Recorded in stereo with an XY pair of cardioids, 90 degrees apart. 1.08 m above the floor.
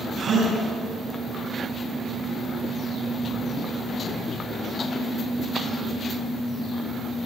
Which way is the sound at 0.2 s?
60° right.